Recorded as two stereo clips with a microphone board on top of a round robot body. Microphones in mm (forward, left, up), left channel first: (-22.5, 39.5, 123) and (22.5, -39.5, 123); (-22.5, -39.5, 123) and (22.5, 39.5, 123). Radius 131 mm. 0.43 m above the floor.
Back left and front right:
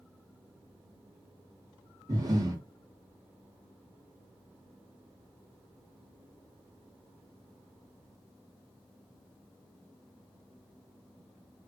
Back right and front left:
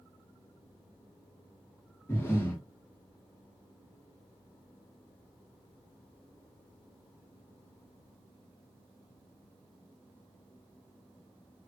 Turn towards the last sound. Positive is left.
turn(degrees=-65)